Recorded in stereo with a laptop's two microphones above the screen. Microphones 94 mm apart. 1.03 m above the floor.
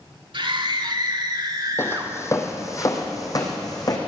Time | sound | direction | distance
0.3 | a scream | 60° right (ahead or behind) | 3 m
1.8 | footsteps | 25° left (ahead or behind) | 1.8 m